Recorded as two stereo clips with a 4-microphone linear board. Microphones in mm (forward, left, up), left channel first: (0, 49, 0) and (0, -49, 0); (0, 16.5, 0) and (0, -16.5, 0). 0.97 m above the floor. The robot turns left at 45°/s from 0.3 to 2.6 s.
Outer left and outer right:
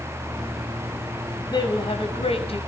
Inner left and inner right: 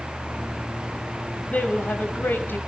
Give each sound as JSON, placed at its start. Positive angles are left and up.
{"t": 1.5, "sound": "a woman speaking", "azimuth_deg": 135, "distance_m": 5.5}